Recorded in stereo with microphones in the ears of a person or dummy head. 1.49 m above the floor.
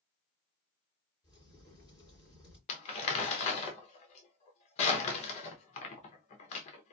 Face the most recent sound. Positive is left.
turn(degrees=35)  # may be behind; listen again after turning